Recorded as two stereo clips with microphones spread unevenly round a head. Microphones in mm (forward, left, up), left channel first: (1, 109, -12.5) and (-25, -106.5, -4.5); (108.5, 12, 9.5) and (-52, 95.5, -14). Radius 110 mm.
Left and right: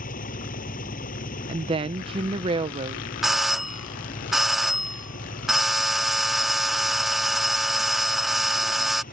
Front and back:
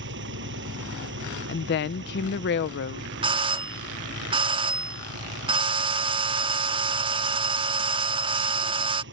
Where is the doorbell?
175° left.